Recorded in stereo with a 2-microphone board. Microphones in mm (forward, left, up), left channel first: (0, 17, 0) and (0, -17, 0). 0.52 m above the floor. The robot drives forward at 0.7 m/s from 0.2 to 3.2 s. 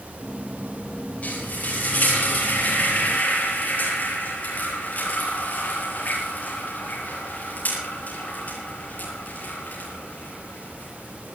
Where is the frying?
45° left (ahead or behind), 9 m; by 11.3 s 55° left (ahead or behind), 8 m.